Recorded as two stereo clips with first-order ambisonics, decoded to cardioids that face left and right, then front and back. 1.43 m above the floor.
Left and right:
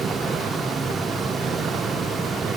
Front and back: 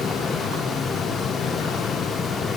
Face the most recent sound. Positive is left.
No sound to turn to.